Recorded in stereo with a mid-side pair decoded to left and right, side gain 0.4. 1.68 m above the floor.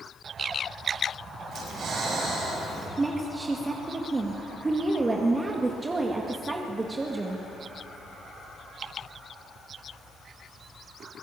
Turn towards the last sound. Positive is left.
turn(degrees=-30)